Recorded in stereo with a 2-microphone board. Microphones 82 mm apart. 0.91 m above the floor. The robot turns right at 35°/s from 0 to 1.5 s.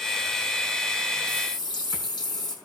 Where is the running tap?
65° left (ahead or behind), 6.5 m; by 2.5 s 60° left (ahead or behind), 6.5 m.